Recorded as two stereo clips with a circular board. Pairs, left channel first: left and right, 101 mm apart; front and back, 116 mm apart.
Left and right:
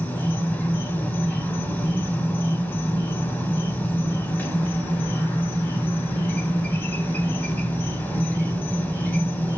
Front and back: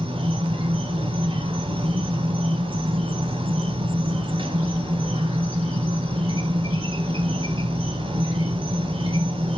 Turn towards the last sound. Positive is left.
turn(degrees=160)